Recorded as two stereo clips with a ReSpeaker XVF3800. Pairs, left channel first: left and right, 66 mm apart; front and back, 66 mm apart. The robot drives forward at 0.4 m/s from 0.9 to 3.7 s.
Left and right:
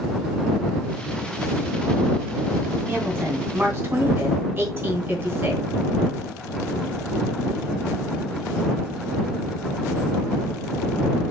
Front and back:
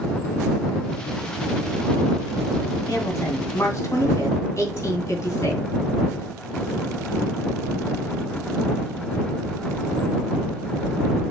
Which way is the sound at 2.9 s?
35° right.